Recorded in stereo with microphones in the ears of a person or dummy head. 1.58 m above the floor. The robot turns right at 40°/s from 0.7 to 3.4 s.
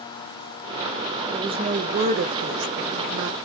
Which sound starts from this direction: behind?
A woman speaking, at 1.3 s.